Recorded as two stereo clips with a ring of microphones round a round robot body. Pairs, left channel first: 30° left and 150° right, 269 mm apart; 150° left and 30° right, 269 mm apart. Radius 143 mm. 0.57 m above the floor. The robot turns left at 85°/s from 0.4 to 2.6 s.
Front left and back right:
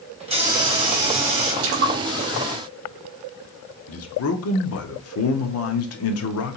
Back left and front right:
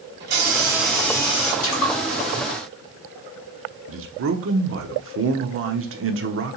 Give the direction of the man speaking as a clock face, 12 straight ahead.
12 o'clock.